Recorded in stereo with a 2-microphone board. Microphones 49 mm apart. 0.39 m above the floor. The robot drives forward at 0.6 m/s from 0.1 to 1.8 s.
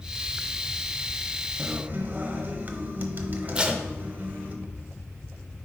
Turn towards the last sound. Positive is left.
turn(degrees=-20)  # may be behind; listen again after turning